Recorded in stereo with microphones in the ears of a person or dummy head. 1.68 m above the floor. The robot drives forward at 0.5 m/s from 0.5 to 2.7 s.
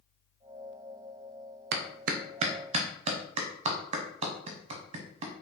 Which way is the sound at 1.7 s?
60° right (ahead or behind).